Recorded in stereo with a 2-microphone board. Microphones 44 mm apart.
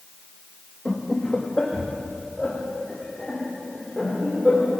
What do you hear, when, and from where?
0.8 s laughter: 20° left (ahead or behind), 2 m; by 4.7 s 15° left (ahead or behind), 5 m